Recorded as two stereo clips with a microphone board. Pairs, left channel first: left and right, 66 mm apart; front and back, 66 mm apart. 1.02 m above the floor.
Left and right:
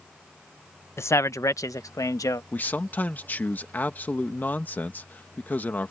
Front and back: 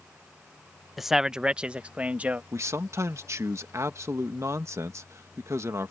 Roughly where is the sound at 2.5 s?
Behind left.